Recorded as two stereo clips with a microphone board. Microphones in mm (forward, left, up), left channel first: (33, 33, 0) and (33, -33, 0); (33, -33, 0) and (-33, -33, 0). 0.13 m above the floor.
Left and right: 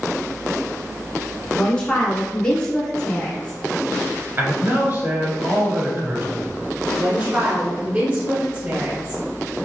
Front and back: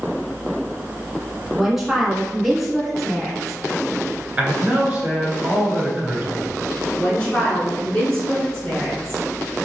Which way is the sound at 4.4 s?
115° right.